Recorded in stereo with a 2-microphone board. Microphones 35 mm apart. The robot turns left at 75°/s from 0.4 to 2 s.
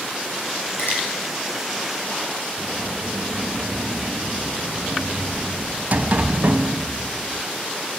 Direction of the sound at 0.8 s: 80° left.